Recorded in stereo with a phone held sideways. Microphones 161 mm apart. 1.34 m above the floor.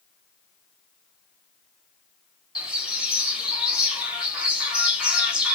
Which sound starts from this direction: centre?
A bird, at 2.5 s.